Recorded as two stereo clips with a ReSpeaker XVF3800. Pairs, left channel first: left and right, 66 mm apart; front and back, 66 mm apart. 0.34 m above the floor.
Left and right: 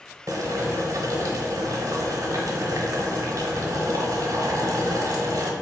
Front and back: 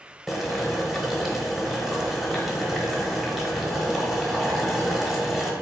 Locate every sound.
0.3 s boiling: 90° right, 0.8 m